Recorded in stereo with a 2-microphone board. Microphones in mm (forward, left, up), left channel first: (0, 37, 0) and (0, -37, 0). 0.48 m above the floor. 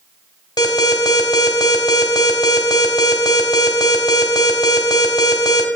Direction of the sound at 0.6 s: 70° left (ahead or behind).